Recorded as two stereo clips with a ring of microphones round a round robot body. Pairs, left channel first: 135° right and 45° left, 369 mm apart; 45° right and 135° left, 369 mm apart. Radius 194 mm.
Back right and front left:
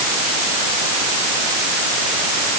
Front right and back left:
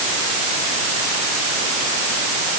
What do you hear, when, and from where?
Only background noise.